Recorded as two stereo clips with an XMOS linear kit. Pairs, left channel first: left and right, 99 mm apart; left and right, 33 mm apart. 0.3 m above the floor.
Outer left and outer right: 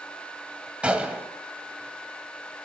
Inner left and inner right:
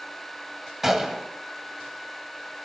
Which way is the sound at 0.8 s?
10° right (ahead or behind).